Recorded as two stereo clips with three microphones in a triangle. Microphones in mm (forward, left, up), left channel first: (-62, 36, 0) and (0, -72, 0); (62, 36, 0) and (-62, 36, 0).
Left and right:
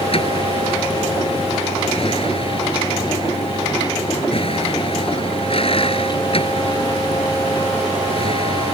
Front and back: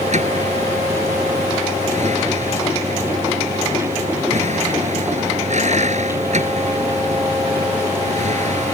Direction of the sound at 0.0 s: 160° left.